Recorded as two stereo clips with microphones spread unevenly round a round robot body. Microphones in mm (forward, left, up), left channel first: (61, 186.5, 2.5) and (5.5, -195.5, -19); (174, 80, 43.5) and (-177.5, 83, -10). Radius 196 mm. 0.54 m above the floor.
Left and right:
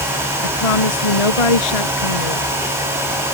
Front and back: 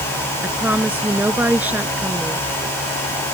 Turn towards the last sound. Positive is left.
turn(degrees=95)